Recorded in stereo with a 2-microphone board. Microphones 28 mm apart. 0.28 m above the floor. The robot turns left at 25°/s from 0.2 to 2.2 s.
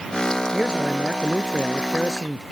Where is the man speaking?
150° right; by 2.4 s 170° left.